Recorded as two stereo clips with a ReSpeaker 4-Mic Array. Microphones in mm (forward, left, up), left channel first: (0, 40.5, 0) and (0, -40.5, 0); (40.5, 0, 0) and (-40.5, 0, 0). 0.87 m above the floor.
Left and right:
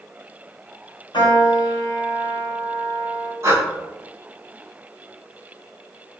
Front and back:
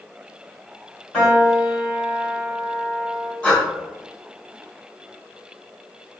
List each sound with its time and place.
1.1 s a piano: 75° left, 1.7 m
3.4 s breathing: 80° right, 0.9 m